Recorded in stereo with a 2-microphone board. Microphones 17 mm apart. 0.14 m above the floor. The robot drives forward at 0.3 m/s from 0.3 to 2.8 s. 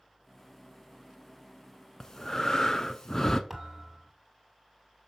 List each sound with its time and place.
2.0 s breathing: 30° left (ahead or behind), 0.7 m
3.5 s a thud: 5° left (ahead or behind), 2 m